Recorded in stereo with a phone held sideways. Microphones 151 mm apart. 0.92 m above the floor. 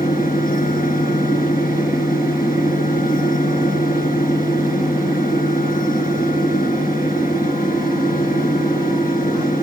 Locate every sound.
0.0 s a fan: 65° left (ahead or behind), 3 m